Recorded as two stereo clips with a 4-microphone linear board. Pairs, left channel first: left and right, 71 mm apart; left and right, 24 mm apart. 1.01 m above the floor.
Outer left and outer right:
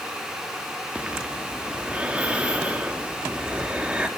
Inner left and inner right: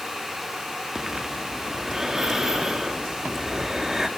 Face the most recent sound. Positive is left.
turn(degrees=-15)  # may be behind; listen again after turning